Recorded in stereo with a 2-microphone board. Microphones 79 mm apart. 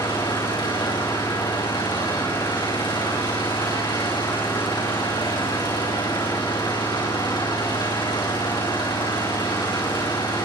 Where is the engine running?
70° left (ahead or behind), 7.5 m.